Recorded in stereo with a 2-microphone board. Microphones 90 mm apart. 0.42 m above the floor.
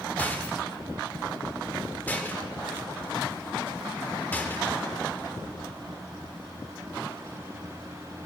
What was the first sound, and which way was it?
A rattle, 20° left (ahead or behind).